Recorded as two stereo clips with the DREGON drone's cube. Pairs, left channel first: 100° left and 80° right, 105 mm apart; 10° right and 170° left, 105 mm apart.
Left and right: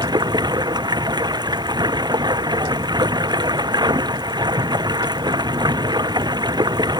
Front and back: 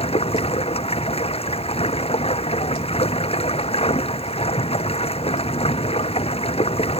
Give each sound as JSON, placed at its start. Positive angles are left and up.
{"t": 0.0, "sound": "running water", "azimuth_deg": -30}